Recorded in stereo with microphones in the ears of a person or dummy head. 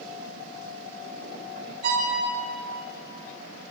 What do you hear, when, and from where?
1.8 s a violin: 55° right (ahead or behind), 3.5 m